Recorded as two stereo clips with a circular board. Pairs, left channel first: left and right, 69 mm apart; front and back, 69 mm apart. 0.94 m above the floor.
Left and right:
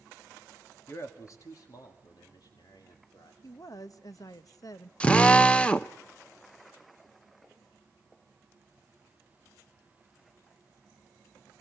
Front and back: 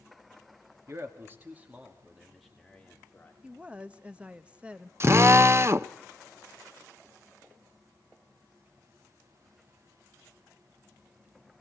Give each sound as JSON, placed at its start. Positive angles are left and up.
{"t": 0.9, "sound": "a man speaking", "azimuth_deg": 135, "distance_m": 2.5}
{"t": 3.4, "sound": "a woman speaking", "azimuth_deg": 110, "distance_m": 0.9}
{"t": 5.0, "sound": "a drill", "azimuth_deg": 155, "distance_m": 0.7}